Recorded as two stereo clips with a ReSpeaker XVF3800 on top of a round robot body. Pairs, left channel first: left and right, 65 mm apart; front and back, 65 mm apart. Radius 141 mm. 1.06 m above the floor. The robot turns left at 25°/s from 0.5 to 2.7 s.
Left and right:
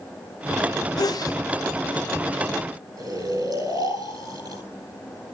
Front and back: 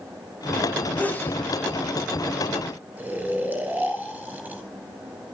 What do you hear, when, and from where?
1.0 s a sneeze: 70° left, 1.7 m; by 1.4 s 60° left, 1.7 m
3.0 s snoring: 115° right, 8.5 m